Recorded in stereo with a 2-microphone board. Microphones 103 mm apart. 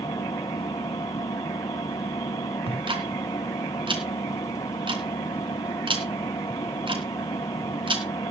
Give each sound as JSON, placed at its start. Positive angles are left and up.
{"t": 0.0, "sound": "an engine running", "side_deg": 45, "distance_m": 1.7}
{"t": 2.7, "sound": "ticking", "side_deg": -55, "distance_m": 3.0}